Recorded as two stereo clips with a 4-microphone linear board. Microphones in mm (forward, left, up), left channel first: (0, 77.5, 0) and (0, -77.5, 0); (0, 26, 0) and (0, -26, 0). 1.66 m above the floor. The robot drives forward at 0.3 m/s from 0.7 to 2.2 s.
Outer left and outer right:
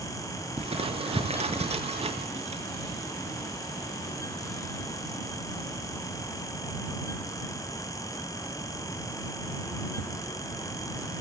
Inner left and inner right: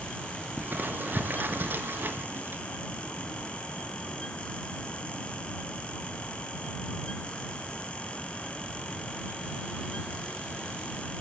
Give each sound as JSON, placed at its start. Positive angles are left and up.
{"t": 0.6, "sound": "crumpling", "side_deg": -40, "distance_m": 6.5}